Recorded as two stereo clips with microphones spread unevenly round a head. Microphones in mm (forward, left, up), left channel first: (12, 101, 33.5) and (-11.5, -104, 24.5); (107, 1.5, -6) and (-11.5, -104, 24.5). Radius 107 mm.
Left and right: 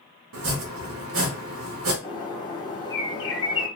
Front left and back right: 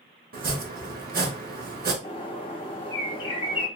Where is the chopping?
110° right, 1.0 m.